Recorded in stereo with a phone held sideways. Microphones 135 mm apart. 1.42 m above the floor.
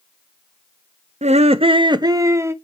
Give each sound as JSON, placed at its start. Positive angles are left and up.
{"t": 1.2, "sound": "laughter", "side_deg": -55, "distance_m": 0.5}